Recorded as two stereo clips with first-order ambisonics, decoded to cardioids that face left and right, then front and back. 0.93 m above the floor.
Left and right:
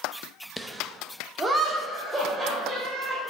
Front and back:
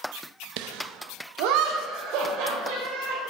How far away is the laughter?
About 0.6 m.